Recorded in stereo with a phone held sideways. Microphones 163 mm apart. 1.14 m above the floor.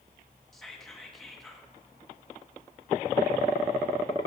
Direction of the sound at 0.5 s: Centre (ahead or behind).